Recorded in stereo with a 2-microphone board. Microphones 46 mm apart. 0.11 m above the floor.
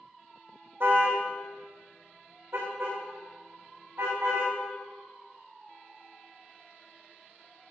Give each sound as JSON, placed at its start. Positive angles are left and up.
{"t": 0.8, "sound": "a car horn", "side_deg": -60, "distance_m": 3.0}